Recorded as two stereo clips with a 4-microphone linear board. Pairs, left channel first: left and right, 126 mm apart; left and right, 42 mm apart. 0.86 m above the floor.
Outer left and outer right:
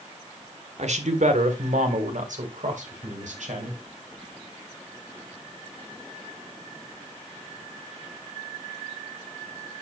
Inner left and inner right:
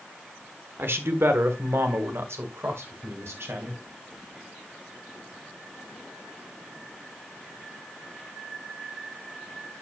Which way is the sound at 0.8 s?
65° right (ahead or behind).